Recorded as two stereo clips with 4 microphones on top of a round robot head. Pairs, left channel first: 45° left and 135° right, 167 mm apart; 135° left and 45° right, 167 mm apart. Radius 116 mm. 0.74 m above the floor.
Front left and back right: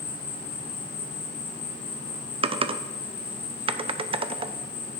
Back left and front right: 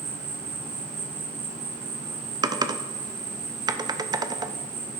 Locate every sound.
0.0 s an insect: straight ahead, 1.2 m
2.4 s typing on a keyboard: 100° right, 0.5 m